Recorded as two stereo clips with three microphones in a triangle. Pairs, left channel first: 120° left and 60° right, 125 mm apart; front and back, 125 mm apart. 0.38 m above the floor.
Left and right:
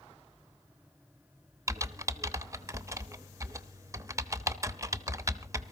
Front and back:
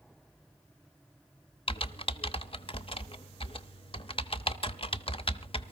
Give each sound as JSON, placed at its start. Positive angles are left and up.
{"t": 1.7, "sound": "typing on a keyboard", "azimuth_deg": -5, "distance_m": 0.7}